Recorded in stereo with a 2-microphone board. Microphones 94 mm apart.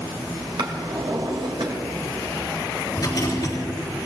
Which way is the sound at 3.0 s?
50° left (ahead or behind).